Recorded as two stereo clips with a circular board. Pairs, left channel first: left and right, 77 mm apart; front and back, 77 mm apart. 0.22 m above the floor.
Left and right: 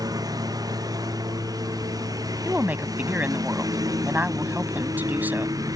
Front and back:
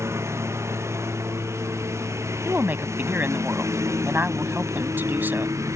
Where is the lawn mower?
125° right; by 5.8 s 130° right.